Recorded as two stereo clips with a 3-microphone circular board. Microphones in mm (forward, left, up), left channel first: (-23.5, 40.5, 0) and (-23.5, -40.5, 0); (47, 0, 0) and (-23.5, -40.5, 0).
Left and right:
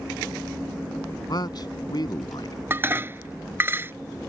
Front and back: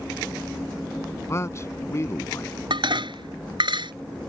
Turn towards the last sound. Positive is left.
turn(degrees=-155)